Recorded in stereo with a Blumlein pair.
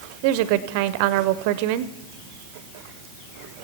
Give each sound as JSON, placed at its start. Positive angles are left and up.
{"t": 0.2, "sound": "a woman speaking", "azimuth_deg": -45, "distance_m": 0.5}